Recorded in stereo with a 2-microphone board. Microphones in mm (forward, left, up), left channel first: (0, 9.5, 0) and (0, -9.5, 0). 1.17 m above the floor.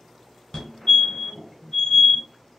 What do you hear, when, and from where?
0.5 s a fire alarm: 45° left (ahead or behind), 1.4 m